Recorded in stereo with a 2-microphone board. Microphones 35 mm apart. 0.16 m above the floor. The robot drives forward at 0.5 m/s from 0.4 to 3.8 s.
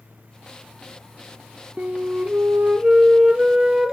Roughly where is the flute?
Right.